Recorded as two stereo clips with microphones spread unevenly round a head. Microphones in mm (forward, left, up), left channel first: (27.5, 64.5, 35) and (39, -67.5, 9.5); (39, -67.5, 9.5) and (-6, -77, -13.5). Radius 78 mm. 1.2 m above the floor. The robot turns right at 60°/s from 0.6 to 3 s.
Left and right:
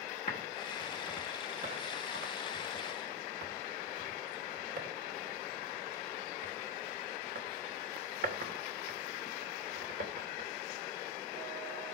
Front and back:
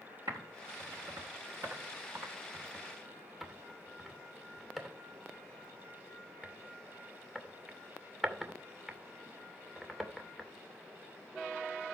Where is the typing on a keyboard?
145° left, 2.5 m; by 10.5 s 75° right, 2.5 m.